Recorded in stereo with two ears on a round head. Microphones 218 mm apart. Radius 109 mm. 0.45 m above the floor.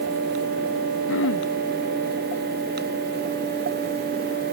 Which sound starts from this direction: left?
Throat clearing, at 1.1 s.